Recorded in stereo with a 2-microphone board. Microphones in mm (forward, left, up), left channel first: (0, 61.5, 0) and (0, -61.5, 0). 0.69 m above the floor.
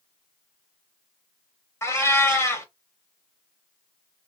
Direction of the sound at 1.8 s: 25° left (ahead or behind).